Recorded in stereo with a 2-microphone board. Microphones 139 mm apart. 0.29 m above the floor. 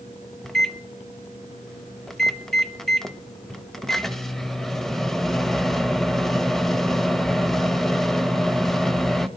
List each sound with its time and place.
0.4 s a microwave: centre (ahead or behind), 0.8 m